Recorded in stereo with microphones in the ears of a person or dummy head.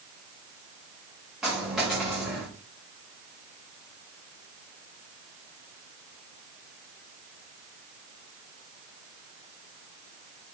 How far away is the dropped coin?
About 6 m.